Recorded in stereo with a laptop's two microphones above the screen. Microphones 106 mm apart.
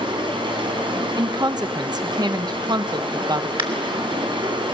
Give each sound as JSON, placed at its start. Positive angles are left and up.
{"t": 0.0, "sound": "running water", "side_deg": -50, "distance_m": 5.0}
{"t": 1.2, "sound": "a woman speaking", "side_deg": -40, "distance_m": 1.0}
{"t": 3.6, "sound": "a crack", "side_deg": -55, "distance_m": 2.5}